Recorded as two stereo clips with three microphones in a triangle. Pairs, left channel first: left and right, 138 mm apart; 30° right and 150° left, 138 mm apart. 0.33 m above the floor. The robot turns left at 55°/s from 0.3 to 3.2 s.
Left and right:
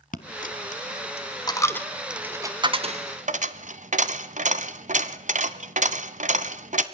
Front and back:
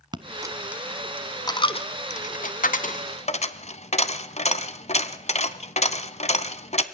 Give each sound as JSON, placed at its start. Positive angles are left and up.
{"t": 0.1, "sound": "a dropped coin", "azimuth_deg": 95, "distance_m": 1.1}